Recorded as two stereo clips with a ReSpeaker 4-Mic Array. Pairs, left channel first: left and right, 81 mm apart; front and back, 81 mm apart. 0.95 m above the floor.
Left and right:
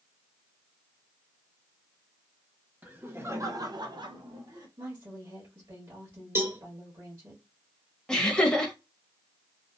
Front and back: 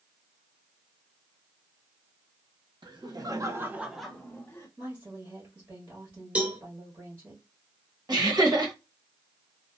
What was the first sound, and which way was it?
Laughter, 160° right.